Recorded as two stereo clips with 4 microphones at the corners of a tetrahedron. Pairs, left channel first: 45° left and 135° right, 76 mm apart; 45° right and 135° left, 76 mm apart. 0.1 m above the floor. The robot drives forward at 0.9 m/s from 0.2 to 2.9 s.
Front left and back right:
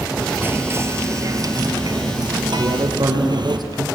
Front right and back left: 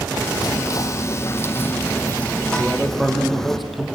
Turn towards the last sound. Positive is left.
turn(degrees=-135)